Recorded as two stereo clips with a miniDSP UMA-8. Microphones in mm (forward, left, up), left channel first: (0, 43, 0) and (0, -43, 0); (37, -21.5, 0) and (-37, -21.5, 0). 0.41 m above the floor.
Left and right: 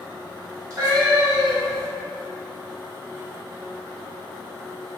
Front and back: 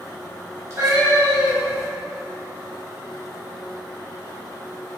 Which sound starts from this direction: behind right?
A cat meowing, at 0.7 s.